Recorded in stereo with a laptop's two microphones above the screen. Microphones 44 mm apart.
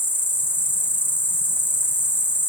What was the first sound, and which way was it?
An insect, 50° left (ahead or behind).